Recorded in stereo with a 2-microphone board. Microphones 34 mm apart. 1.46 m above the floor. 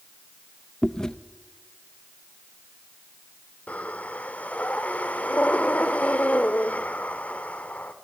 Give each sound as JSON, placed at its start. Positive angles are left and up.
{"t": 0.8, "sound": "chewing", "side_deg": 20, "distance_m": 0.7}
{"t": 3.7, "sound": "breathing", "side_deg": 40, "distance_m": 1.4}